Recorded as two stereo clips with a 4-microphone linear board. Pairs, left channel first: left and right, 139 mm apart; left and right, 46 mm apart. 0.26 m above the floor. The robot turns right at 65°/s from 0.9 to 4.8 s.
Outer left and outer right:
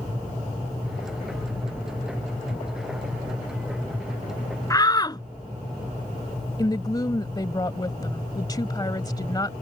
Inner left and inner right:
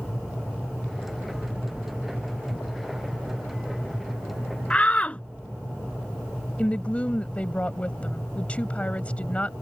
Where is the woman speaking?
30° left (ahead or behind).